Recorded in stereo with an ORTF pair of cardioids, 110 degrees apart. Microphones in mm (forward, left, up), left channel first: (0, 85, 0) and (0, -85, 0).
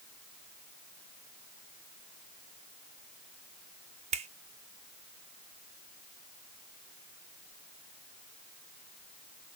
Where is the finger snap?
40° right, 0.7 m.